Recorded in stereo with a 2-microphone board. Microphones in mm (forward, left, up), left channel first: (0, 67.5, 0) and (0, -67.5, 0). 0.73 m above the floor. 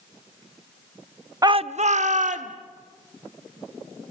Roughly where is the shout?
Right.